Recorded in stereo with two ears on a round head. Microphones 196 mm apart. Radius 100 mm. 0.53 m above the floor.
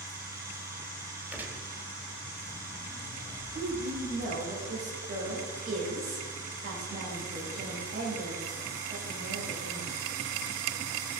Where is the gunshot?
10° right (ahead or behind), 1.4 m.